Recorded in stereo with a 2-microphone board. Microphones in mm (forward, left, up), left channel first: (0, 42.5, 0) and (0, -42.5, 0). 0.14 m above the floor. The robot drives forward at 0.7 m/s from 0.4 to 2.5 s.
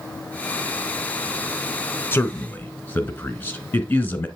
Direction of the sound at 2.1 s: 25° left (ahead or behind).